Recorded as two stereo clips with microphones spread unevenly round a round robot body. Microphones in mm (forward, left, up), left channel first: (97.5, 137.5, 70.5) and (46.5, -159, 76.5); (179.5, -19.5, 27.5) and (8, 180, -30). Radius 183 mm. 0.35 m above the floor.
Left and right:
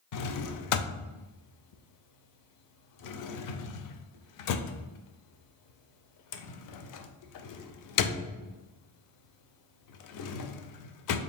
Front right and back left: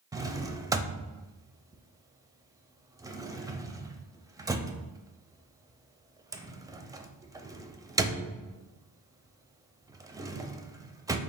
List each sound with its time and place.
0.1 s a drawer: 55° left, 0.5 m